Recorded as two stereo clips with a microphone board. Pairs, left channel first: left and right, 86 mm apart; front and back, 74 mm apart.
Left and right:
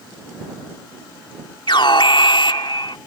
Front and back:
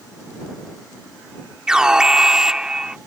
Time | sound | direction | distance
1.7 | an alarm | 100° left | ?